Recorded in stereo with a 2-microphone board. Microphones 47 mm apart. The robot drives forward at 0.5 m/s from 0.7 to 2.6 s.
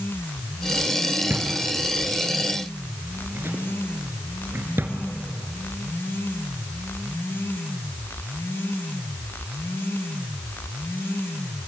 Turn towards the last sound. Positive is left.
turn(degrees=-55)  # may be behind; listen again after turning